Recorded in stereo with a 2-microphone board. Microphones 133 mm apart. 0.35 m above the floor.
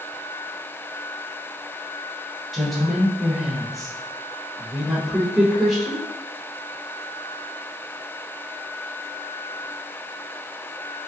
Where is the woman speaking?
Centre (ahead or behind), 0.9 m.